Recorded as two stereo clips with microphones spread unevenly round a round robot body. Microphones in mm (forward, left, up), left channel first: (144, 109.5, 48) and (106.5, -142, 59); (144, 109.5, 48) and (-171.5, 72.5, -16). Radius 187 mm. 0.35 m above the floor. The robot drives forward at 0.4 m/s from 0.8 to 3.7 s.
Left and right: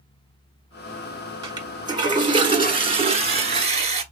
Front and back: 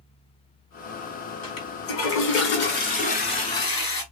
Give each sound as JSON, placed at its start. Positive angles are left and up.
{"t": 1.4, "sound": "a toilet flushing", "azimuth_deg": -25, "distance_m": 1.5}